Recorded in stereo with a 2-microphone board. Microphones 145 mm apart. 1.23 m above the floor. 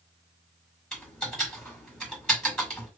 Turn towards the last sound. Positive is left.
turn(degrees=5)  # may be behind; listen again after turning